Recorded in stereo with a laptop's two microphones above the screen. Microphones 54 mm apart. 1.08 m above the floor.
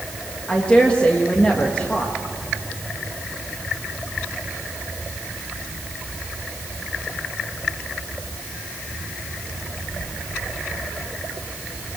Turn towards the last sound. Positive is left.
turn(degrees=20)  # may be behind; listen again after turning